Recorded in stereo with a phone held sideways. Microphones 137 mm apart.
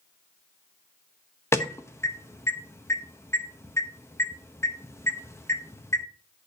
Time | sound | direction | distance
1.5 | an alarm | 20° left (ahead or behind) | 0.9 m